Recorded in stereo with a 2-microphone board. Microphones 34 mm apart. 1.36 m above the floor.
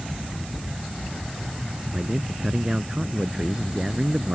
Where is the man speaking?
20° right (ahead or behind).